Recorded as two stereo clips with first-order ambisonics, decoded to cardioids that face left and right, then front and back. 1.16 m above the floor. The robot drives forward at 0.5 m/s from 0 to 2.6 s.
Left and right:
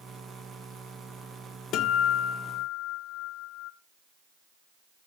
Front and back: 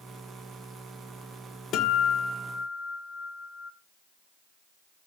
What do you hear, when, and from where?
1.7 s a guitar: 50° left, 1.3 m; by 3.7 s 75° left, 1.1 m